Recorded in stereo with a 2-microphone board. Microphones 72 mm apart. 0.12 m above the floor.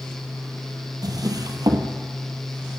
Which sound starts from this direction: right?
A drawer, at 1.0 s.